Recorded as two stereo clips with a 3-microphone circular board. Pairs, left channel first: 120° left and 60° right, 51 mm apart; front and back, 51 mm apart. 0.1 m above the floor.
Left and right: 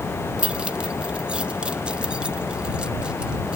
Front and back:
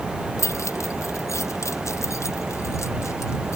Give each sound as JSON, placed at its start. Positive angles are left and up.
{"t": 0.4, "sound": "keys jangling", "azimuth_deg": 10}